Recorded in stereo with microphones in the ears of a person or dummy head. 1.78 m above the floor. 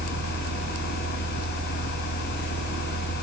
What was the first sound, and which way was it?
A fan, 60° left (ahead or behind).